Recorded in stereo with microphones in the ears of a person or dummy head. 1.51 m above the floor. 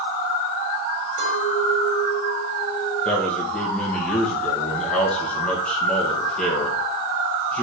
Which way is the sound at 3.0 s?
5° left (ahead or behind).